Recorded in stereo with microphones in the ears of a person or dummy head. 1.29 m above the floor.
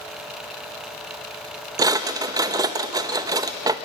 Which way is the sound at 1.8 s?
15° right (ahead or behind).